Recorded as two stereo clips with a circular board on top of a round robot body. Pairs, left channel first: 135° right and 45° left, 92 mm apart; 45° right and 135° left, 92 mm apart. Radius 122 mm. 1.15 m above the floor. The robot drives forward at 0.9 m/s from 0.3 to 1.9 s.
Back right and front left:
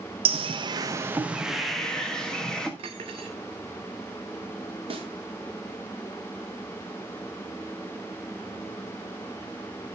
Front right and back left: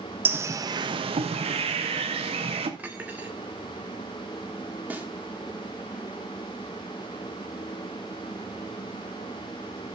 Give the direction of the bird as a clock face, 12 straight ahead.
10 o'clock.